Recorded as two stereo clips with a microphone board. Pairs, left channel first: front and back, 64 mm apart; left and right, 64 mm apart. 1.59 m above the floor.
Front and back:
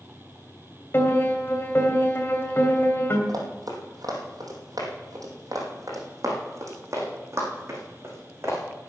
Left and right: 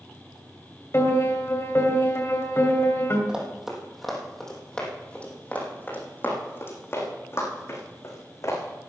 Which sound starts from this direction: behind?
Running footsteps, at 3.3 s.